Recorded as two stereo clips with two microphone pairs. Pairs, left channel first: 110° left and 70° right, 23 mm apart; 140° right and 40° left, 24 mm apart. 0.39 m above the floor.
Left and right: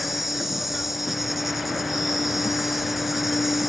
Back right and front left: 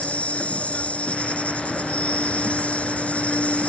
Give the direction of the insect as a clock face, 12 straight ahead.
5 o'clock.